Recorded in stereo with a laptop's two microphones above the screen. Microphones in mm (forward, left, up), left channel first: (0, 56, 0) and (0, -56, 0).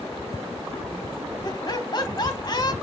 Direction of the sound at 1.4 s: 40° left (ahead or behind).